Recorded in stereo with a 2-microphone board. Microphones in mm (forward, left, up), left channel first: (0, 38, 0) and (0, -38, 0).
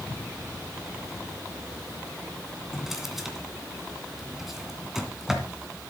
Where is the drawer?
5° right (ahead or behind), 2.5 m.